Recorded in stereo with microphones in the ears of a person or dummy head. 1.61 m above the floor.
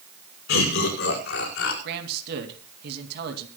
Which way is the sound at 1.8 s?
60° right (ahead or behind).